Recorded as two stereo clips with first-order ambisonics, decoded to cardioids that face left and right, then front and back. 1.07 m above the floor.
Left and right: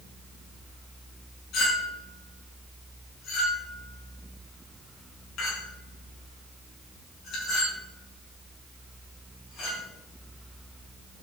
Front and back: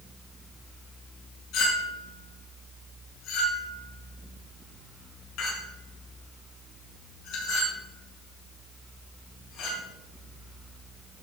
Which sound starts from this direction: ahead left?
A clink, at 1.5 s.